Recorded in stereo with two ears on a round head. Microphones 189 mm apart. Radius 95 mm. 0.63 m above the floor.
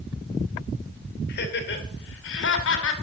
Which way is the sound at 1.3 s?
55° left (ahead or behind).